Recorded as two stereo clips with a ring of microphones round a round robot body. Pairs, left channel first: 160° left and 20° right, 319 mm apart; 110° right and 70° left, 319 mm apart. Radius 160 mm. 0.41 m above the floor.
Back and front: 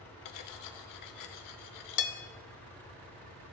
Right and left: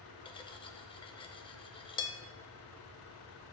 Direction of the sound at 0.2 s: 175° left.